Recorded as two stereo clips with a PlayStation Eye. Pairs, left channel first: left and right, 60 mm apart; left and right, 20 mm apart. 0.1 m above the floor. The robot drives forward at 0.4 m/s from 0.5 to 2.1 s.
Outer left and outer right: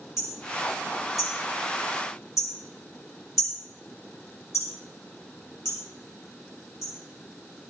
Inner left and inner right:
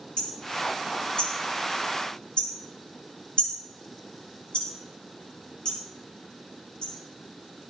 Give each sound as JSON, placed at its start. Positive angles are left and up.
{"t": 0.2, "sound": "hammering", "side_deg": 60, "distance_m": 8.0}